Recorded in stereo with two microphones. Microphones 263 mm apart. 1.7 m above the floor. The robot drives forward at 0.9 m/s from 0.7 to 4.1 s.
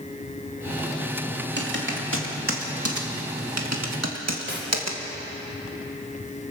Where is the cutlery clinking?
45° right (ahead or behind), 4 m.